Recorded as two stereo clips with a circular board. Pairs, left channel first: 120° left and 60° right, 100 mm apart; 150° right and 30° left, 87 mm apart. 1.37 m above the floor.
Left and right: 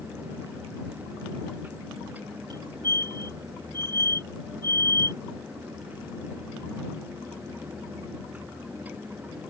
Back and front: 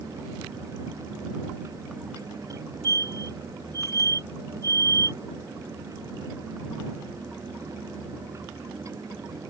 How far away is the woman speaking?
I don't hear a woman speaking.